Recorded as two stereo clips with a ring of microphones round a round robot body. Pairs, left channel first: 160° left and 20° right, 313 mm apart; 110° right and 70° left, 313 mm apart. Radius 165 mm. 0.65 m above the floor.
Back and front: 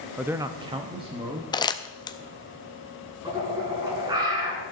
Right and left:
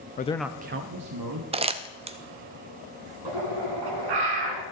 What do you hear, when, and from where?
0.2 s a man speaking: 105° right, 0.6 m; by 1.4 s 50° left, 1.2 m
1.5 s crumpling: 105° left, 0.6 m
3.2 s a bird: 55° left, 2 m